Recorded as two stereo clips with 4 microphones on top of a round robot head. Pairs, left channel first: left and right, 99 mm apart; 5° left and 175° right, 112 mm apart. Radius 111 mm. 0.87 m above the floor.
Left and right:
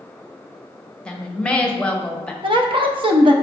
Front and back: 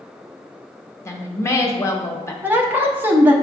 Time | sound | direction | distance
1.1 | a woman speaking | 25° left | 0.9 m
2.4 | a woman speaking | 105° right | 0.7 m